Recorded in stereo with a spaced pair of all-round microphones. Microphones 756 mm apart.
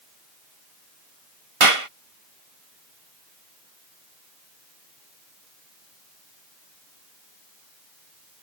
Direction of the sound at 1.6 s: 45° right (ahead or behind).